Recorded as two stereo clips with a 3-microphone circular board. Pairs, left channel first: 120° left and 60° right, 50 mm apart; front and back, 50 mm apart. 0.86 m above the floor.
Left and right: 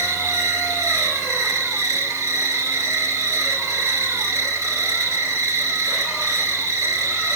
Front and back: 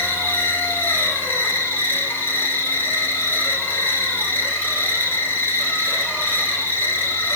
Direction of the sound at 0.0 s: 50° right.